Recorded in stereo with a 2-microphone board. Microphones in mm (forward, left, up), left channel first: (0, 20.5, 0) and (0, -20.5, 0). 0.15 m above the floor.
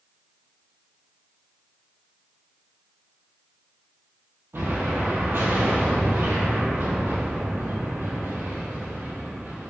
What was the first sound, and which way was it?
An explosion, 70° right (ahead or behind).